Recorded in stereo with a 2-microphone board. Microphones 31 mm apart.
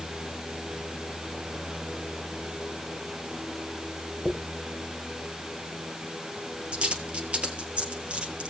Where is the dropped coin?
40° right (ahead or behind), 2 m.